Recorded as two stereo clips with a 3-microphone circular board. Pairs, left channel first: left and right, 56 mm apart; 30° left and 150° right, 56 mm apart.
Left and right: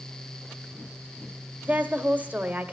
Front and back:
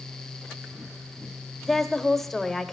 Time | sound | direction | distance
1.6 | a woman speaking | 55° right | 1.1 m